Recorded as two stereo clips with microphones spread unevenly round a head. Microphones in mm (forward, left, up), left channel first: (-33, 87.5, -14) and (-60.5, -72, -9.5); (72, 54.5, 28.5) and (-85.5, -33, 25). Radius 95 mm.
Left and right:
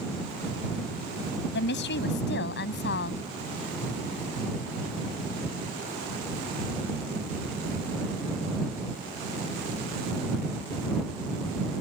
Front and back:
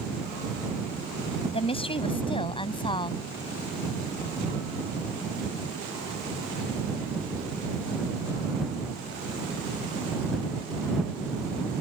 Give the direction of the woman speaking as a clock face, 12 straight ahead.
9 o'clock.